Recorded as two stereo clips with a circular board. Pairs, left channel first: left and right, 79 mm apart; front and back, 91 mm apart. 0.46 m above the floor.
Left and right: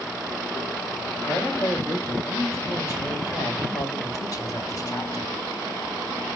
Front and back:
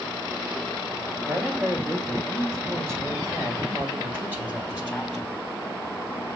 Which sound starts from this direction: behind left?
A man speaking, at 1.2 s.